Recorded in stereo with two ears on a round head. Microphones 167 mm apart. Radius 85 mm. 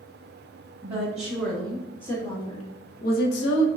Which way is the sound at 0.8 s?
10° right (ahead or behind).